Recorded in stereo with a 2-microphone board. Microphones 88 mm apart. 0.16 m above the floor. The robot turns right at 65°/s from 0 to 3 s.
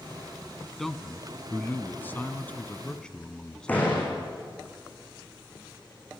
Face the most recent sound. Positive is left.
turn(degrees=20)  # may be behind; listen again after turning